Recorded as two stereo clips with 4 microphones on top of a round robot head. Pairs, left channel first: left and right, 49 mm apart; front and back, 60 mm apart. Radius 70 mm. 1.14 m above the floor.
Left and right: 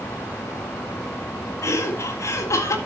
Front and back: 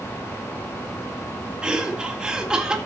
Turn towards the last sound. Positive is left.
turn(degrees=100)